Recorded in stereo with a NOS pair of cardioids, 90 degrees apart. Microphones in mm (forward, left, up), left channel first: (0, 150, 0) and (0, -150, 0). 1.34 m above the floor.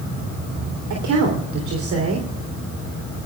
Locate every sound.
0.9 s a woman speaking: 70° right, 3.5 m